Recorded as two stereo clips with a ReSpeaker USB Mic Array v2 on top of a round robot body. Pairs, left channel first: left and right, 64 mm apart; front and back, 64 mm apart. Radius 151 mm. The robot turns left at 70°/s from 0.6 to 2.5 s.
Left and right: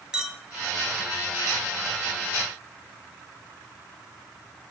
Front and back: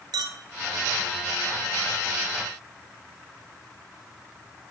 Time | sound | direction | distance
0.1 | a clink | 170° right | 2.0 m